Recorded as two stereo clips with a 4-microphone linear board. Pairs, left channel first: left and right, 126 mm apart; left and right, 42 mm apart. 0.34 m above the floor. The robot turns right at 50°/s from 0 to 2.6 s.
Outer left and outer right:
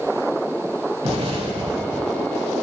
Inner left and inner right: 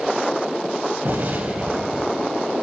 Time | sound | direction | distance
1.0 | an explosion | 80° right | 1.9 m